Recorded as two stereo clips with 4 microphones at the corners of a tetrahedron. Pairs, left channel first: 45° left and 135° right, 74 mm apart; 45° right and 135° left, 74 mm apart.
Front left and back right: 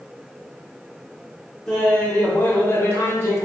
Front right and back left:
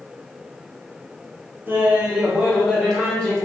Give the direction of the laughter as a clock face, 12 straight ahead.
8 o'clock.